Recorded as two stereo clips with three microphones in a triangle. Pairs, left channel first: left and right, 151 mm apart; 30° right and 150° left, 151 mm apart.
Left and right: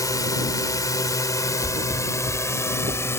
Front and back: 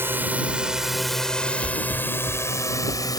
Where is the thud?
65° right.